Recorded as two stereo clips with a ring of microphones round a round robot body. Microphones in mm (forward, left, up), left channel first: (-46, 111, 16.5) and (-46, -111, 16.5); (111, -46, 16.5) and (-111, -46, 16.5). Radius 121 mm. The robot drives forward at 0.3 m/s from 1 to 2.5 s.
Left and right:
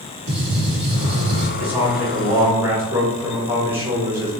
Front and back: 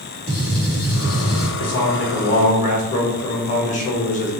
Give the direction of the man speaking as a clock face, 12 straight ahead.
12 o'clock.